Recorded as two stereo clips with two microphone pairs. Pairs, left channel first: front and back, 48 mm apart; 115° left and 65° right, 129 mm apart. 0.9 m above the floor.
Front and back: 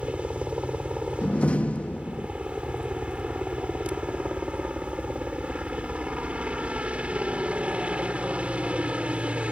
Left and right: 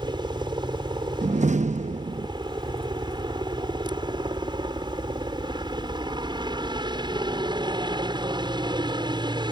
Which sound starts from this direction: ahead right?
A door slam, at 1.2 s.